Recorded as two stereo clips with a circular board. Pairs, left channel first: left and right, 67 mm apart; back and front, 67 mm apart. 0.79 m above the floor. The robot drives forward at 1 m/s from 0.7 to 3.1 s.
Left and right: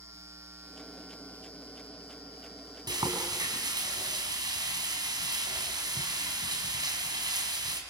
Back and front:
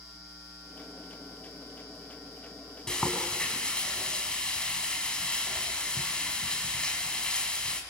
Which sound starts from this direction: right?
Frying, at 2.9 s.